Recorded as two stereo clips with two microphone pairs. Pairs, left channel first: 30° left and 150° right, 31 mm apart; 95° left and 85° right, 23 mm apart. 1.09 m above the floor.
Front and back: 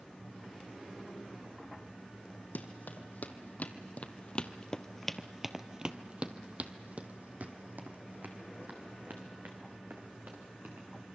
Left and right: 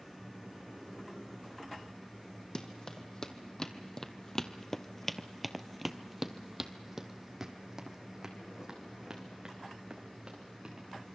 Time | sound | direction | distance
2.5 | running footsteps | 35° left | 2.5 m